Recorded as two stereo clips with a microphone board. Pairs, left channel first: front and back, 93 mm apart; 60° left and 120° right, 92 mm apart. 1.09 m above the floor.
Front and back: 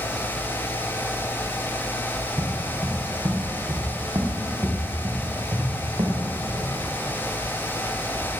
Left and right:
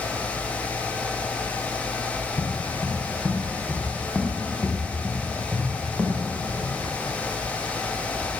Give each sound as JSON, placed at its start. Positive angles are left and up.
{"t": 2.2, "sound": "footsteps", "azimuth_deg": 135, "distance_m": 3.0}